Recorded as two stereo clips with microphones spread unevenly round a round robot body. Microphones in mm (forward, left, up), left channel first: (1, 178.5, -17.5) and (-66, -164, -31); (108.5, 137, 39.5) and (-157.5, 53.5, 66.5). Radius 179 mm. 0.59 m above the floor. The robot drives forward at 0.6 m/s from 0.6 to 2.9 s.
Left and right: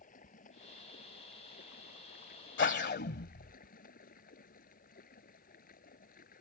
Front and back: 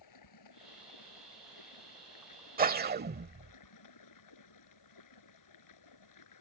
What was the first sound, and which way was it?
Running water, 10° left.